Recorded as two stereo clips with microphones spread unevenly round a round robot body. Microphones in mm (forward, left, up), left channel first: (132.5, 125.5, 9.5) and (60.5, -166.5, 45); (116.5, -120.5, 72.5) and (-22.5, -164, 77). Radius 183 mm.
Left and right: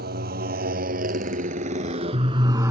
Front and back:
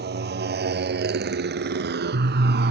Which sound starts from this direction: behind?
A motorcycle, at 0.0 s.